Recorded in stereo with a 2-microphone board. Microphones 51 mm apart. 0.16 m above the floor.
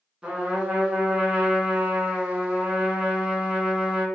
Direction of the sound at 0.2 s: 20° right (ahead or behind).